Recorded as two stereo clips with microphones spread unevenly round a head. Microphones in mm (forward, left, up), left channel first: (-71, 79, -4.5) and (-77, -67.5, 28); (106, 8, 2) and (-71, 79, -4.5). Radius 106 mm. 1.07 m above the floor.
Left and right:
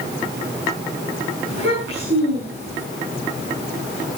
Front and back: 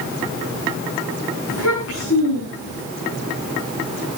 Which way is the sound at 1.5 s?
55° right.